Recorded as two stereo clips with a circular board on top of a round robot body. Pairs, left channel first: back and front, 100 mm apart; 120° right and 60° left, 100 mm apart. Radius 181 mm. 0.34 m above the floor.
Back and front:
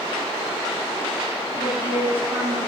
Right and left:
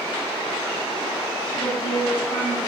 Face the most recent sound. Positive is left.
turn(degrees=-70)